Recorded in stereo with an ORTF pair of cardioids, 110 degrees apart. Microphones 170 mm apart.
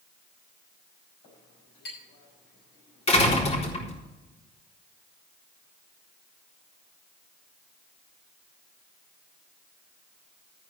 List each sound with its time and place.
1.2 s a clink: 65° left, 6.5 m
3.1 s a door slam: 35° left, 4 m